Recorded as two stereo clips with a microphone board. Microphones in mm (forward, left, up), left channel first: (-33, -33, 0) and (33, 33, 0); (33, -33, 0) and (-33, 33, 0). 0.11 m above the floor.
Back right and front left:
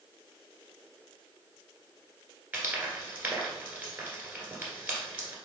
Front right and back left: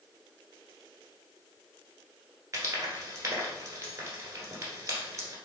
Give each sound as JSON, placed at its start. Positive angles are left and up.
{"t": 2.5, "sound": "frying", "azimuth_deg": 100, "distance_m": 1.5}